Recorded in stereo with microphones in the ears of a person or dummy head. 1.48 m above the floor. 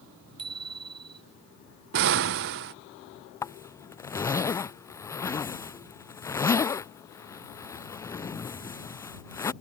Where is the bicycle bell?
30° right (ahead or behind).